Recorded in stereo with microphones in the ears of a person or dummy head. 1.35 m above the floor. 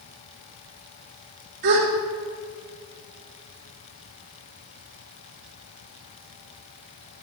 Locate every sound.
1.6 s a gasp: 50° right (ahead or behind), 1.1 m